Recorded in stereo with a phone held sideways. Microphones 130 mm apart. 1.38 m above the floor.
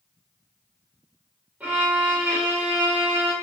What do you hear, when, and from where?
1.6 s a violin: 10° right (ahead or behind), 0.8 m